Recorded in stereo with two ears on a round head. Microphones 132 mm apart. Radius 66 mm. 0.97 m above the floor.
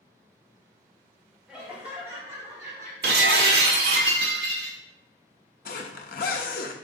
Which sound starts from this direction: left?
A zipper, at 5.7 s.